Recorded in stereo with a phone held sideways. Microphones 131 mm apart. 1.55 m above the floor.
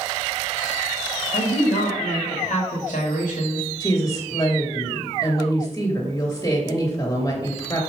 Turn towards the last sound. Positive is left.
turn(degrees=30)  # may be behind; listen again after turning